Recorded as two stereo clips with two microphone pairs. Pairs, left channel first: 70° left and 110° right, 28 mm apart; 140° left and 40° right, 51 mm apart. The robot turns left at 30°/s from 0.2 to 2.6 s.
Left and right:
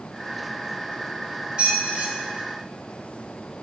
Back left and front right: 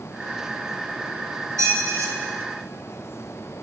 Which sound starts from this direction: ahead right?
A squeak, at 1.6 s.